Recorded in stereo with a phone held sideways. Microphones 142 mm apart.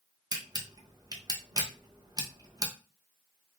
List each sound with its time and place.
0.3 s a camera shutter: 25° right (ahead or behind), 0.7 m